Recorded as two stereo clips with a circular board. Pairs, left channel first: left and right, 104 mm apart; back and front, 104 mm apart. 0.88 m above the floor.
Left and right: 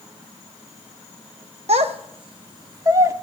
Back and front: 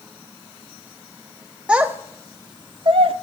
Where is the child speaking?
80° right, 0.7 m; by 3.1 s 30° right, 1.0 m.